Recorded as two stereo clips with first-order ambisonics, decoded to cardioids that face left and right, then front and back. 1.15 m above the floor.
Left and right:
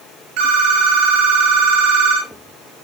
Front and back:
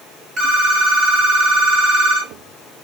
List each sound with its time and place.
0.4 s a phone ringing: 115° right, 1.1 m